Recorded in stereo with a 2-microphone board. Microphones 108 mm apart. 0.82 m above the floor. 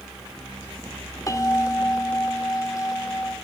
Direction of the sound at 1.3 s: 30° left (ahead or behind).